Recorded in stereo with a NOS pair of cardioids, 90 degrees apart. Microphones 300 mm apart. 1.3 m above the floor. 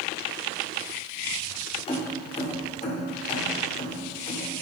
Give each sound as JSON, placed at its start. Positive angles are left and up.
{"t": 1.9, "sound": "keys jangling", "azimuth_deg": 20, "distance_m": 2.5}